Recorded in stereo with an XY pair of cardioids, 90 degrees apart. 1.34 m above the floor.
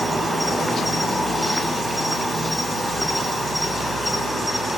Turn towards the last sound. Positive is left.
turn(degrees=0)